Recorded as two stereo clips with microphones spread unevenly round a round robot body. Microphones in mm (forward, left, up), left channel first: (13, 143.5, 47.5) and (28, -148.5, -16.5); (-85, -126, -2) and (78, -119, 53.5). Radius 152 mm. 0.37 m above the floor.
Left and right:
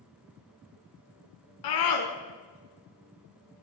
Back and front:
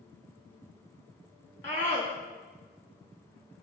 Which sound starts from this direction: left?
A scream, at 1.6 s.